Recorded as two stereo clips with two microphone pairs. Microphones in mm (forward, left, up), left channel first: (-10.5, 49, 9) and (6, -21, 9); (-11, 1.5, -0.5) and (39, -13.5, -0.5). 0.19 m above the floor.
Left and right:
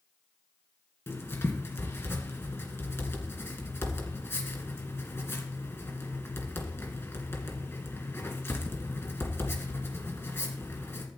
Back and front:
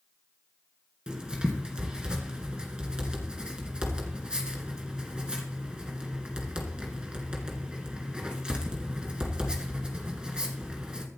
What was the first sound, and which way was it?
Writing, 55° left.